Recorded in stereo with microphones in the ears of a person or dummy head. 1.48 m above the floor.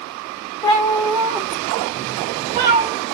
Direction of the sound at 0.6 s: 30° left (ahead or behind).